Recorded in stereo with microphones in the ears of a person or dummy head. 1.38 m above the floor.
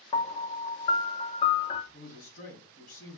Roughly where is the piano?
Left.